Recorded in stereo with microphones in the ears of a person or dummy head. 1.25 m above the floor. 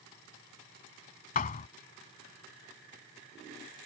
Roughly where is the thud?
Left.